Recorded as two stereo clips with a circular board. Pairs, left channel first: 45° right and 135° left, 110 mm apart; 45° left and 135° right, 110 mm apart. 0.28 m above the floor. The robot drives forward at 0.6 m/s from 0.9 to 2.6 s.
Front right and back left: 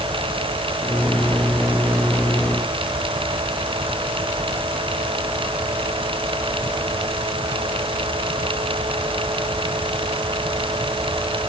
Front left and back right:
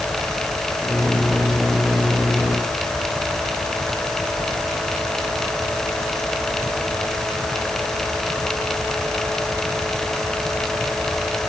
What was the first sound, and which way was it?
Only background noise.